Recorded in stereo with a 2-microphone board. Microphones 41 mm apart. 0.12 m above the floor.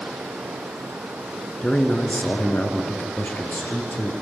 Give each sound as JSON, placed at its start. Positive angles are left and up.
{"t": 1.6, "sound": "a man speaking", "side_deg": 25, "distance_m": 1.3}